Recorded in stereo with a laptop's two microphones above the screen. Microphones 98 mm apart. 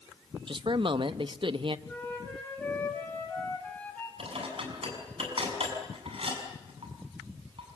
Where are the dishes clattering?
65° right (ahead or behind), 5.5 m.